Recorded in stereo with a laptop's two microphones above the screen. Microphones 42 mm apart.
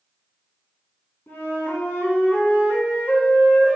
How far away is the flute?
About 3.5 m.